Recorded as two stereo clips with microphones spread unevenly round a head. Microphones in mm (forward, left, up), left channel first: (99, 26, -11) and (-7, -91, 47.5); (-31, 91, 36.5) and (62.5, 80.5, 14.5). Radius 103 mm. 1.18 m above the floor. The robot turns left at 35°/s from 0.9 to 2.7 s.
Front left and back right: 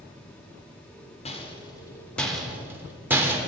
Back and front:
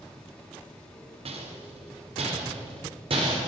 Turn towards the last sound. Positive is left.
turn(degrees=-50)